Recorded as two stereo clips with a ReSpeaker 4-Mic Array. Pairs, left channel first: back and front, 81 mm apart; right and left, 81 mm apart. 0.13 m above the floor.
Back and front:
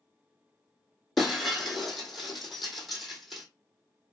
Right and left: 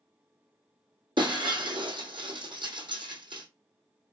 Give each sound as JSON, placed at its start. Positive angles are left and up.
{"t": 1.2, "sound": "breaking glass", "azimuth_deg": 90, "distance_m": 1.4}